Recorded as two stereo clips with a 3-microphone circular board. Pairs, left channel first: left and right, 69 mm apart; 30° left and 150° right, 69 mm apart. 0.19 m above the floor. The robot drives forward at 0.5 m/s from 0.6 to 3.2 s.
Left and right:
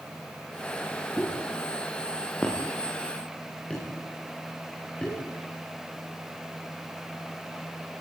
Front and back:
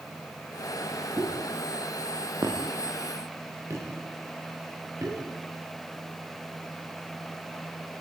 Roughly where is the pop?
Behind.